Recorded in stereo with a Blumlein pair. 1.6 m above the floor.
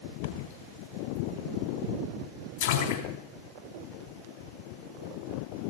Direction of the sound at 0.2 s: 60° left.